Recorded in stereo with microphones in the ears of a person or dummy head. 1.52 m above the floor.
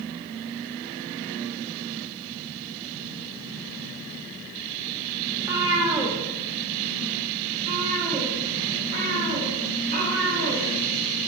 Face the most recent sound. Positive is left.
turn(degrees=-55)  # may be behind; listen again after turning